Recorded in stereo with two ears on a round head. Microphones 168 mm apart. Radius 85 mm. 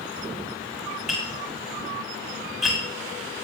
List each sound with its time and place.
1.1 s tapping: centre (ahead or behind), 6 m